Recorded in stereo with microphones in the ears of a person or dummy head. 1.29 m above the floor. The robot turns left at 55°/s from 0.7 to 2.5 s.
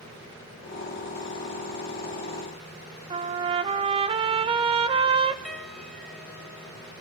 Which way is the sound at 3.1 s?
30° right (ahead or behind).